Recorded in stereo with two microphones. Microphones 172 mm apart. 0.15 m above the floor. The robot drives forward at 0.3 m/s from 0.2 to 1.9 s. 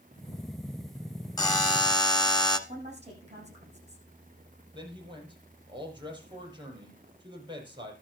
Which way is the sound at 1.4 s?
20° left (ahead or behind).